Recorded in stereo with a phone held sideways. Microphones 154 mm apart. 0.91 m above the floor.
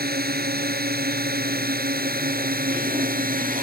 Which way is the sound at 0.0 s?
85° right.